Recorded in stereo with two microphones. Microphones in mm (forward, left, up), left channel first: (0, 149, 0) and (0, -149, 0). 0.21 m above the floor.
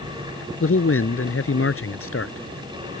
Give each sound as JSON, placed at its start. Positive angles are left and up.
{"t": 0.6, "sound": "a man speaking", "side_deg": 45}